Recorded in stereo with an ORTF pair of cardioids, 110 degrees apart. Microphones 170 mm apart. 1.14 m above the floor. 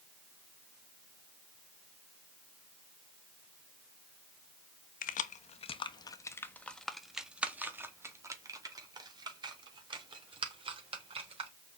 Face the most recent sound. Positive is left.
turn(degrees=-35)